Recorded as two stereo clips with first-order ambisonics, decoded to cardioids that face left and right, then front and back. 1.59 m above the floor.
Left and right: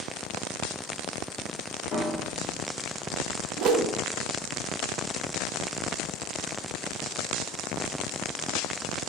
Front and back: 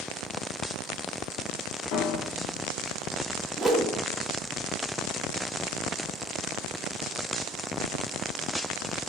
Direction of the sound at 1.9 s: 35° left.